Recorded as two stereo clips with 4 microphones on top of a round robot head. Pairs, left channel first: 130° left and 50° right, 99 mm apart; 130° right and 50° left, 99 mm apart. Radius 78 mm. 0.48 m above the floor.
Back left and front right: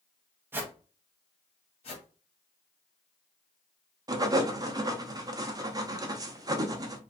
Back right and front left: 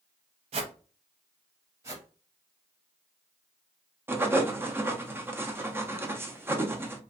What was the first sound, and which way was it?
A whoosh, 20° left.